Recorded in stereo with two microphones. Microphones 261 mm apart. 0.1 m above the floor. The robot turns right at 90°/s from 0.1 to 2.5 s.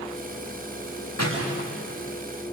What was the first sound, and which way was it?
A door slam, 80° left.